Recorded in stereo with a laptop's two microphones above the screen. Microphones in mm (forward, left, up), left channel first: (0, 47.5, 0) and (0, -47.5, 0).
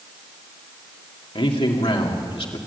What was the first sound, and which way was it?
A man speaking, 75° left (ahead or behind).